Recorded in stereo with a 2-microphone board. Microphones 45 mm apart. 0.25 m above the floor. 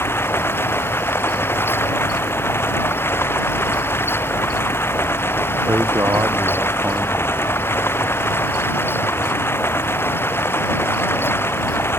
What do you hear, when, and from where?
0.0 s running water: 60° left (ahead or behind)
5.7 s a man speaking: 65° right (ahead or behind)